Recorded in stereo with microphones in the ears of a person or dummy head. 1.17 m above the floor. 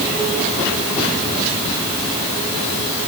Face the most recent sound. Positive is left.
No sound to turn to.